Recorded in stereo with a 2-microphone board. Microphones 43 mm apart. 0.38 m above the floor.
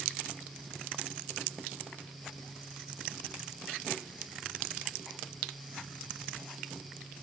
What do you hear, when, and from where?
Only background noise.